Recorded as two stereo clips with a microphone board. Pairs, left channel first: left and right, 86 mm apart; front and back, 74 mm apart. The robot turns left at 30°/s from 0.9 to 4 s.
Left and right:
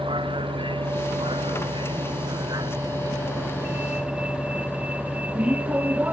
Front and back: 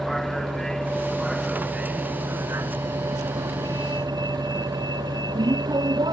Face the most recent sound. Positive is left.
turn(degrees=-160)